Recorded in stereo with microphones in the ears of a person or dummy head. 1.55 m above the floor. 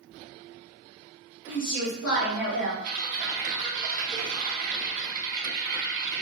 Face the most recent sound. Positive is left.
turn(degrees=-60)  # may be behind; listen again after turning